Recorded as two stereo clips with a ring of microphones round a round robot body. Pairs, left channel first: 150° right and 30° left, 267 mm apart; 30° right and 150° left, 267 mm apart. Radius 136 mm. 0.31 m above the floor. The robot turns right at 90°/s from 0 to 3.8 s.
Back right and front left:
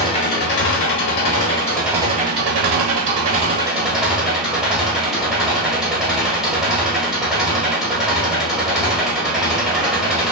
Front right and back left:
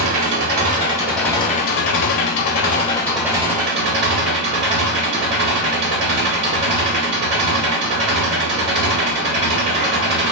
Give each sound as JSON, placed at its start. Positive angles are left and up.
{"t": 0.0, "sound": "an engine running", "azimuth_deg": 135, "distance_m": 0.9}